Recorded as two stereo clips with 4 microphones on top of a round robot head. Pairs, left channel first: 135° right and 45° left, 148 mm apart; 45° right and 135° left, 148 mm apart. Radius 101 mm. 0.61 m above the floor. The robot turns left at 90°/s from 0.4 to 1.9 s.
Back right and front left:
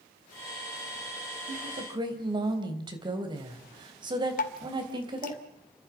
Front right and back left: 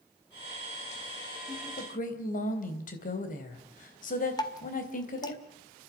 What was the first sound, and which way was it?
A woman speaking, 25° left.